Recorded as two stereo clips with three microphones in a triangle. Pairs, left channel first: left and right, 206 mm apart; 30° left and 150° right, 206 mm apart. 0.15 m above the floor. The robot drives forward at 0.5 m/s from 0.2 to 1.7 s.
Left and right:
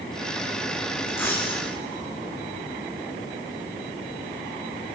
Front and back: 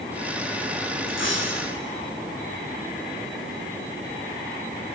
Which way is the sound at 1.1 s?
10° left.